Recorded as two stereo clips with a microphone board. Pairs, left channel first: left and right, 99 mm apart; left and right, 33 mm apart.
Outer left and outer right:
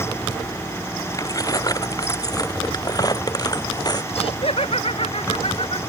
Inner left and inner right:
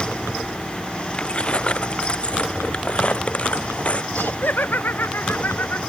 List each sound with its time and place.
1.1 s keys jangling: 35° left (ahead or behind); by 4.0 s 45° left (ahead or behind)
4.1 s laughter: 75° left (ahead or behind)